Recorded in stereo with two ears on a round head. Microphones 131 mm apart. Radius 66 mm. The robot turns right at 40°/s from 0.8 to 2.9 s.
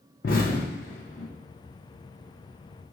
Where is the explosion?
65° left (ahead or behind), 0.9 m; by 1.3 s 45° left (ahead or behind), 0.9 m.